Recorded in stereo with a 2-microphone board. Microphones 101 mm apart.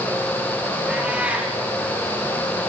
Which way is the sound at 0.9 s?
10° right (ahead or behind).